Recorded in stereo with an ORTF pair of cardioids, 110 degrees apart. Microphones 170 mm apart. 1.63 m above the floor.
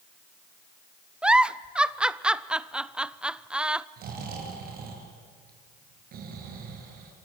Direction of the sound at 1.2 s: 5° right.